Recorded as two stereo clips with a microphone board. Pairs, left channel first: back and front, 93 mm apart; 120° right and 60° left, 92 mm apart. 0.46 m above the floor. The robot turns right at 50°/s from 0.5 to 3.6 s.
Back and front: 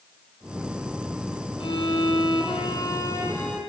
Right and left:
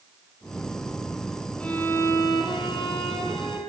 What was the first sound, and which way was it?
A violin, 160° left.